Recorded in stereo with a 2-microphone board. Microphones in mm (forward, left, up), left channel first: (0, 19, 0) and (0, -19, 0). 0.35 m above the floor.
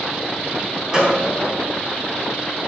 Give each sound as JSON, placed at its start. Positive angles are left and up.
{"t": 0.9, "sound": "a gunshot", "side_deg": -15, "distance_m": 3.0}